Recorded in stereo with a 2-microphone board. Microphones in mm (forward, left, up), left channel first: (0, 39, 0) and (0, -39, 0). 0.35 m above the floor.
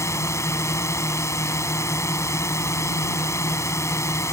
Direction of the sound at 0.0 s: 35° left (ahead or behind).